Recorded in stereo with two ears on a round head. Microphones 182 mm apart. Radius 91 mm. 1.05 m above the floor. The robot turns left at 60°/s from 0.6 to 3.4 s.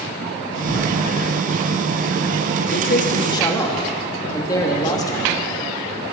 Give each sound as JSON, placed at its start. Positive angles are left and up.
{"t": 0.7, "sound": "a door slam", "side_deg": 35, "distance_m": 7.5}
{"t": 2.7, "sound": "a man speaking", "azimuth_deg": 60, "distance_m": 1.8}